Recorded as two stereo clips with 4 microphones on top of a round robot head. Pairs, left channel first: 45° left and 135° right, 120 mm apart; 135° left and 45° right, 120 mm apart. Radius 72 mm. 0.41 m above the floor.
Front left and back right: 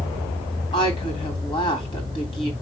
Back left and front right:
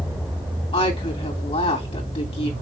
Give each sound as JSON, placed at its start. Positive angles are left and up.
{"t": 0.7, "sound": "a woman speaking", "azimuth_deg": 90, "distance_m": 2.5}